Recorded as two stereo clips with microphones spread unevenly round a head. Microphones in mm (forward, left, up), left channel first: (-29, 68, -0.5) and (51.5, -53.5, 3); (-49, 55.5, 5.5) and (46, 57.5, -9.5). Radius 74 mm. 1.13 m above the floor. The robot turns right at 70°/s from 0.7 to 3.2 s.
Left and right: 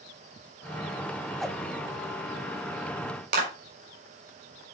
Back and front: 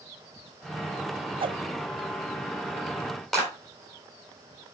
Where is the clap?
90° right, 4 m.